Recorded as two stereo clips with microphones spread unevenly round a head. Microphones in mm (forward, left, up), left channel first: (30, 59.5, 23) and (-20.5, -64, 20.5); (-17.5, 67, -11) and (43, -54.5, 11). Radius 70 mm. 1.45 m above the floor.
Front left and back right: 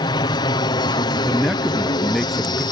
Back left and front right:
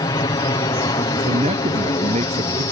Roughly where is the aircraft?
Left.